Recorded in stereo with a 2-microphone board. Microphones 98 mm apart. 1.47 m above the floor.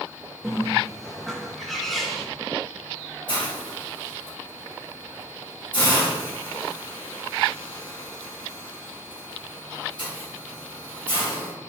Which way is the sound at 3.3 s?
55° left (ahead or behind).